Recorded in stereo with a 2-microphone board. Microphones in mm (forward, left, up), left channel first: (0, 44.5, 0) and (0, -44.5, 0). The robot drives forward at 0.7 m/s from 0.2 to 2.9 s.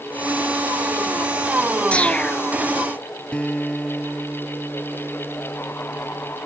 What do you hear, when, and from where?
1.9 s a whoosh: 15° left (ahead or behind)
3.3 s a guitar: 15° left (ahead or behind)